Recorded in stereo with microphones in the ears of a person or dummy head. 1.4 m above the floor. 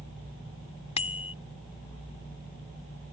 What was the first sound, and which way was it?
A bicycle bell, 35° left (ahead or behind).